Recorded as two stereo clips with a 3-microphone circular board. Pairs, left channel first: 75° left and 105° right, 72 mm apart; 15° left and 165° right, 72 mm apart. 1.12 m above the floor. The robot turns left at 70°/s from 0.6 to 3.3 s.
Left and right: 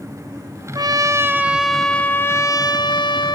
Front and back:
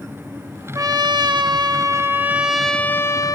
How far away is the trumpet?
About 1.2 m.